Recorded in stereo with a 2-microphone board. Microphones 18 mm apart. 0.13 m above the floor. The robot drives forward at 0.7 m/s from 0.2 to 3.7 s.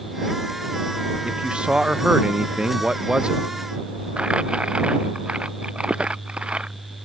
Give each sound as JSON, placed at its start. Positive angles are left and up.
{"t": 1.2, "sound": "a man speaking", "side_deg": -70}
{"t": 4.2, "sound": "crumpling", "side_deg": -85}